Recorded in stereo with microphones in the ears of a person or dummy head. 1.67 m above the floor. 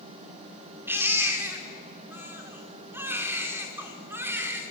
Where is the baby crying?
20° right (ahead or behind), 2.5 m.